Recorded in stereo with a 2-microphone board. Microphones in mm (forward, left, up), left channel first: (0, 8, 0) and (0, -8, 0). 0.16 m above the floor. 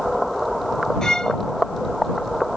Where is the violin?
55° left (ahead or behind).